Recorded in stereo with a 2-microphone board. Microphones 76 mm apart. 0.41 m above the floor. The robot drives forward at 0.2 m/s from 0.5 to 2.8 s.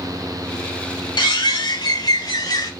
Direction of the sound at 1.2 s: 80° left.